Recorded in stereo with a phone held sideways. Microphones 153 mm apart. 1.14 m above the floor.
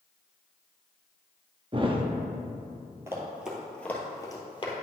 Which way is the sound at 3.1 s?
20° right (ahead or behind).